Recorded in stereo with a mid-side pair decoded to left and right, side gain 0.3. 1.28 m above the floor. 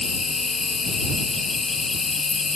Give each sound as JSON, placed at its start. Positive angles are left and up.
{"t": 0.0, "sound": "an insect", "azimuth_deg": 45}